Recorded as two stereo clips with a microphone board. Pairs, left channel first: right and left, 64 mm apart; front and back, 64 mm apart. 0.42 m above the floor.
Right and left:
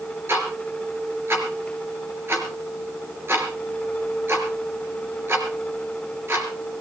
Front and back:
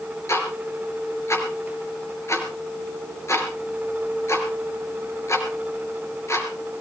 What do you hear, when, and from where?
0.3 s ticking: 40° left, 3.5 m